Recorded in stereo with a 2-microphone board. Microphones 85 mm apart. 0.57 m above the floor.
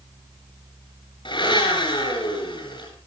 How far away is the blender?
About 8.5 m.